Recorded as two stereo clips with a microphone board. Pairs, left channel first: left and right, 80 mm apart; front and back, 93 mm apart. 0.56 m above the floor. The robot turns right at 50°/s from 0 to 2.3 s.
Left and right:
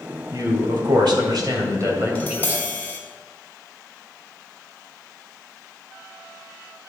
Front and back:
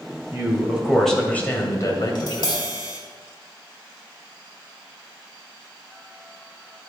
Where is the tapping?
15° left, 2.0 m; by 3.0 s 25° left, 2.0 m.